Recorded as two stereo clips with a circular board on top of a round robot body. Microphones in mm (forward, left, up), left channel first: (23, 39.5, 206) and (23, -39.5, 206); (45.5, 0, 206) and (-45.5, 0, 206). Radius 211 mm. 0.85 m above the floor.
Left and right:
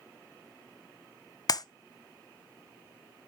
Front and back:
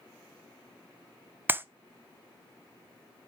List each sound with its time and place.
1.5 s a clap: 115° left, 0.7 m